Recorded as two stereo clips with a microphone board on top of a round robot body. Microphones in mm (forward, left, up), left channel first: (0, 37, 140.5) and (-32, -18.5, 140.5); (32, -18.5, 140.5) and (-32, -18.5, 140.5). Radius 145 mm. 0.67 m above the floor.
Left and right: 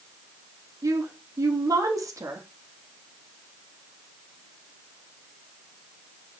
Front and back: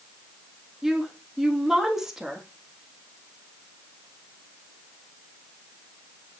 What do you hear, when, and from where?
0.8 s a woman speaking: 95° right, 1.5 m